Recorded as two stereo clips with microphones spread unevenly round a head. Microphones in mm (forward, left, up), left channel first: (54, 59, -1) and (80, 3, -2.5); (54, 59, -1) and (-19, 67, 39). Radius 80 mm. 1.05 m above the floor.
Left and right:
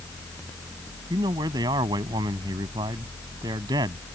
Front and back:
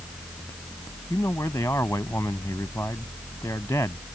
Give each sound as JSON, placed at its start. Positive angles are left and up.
{"t": 1.1, "sound": "a man speaking", "azimuth_deg": -85}